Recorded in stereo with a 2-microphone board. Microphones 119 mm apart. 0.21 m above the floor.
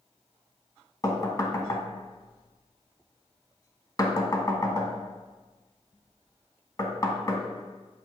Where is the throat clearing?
No throat clearing in this recording.